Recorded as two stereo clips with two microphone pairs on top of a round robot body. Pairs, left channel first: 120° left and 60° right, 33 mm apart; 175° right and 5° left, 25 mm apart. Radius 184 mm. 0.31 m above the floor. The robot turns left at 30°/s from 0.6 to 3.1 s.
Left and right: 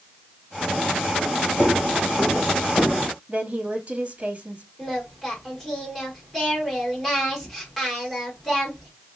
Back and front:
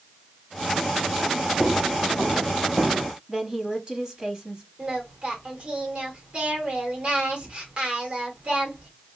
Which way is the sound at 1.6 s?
85° left.